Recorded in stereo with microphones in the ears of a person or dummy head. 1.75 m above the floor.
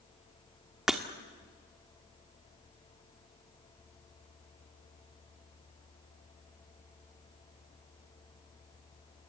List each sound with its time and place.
0.9 s breaking glass: 5° right (ahead or behind), 1.4 m